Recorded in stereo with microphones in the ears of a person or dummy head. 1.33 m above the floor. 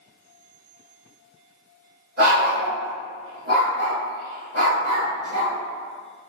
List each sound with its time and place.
2.2 s a dog barking: 40° right (ahead or behind), 1.6 m